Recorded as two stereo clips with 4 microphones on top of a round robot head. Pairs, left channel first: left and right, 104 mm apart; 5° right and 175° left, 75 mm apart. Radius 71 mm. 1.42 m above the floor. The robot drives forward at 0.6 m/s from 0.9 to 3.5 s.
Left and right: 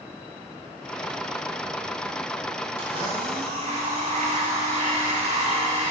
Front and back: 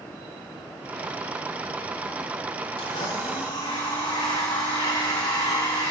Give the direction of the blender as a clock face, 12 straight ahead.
1 o'clock.